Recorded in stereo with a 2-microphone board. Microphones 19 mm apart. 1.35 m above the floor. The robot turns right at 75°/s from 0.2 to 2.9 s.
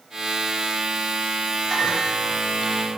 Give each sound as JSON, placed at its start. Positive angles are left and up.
{"t": 1.7, "sound": "a microwave", "azimuth_deg": 20, "distance_m": 4.0}